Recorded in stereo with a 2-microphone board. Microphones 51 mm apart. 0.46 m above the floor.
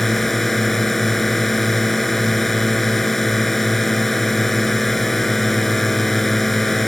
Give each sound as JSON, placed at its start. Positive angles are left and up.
{"t": 0.0, "sound": "a drone", "side_deg": 5}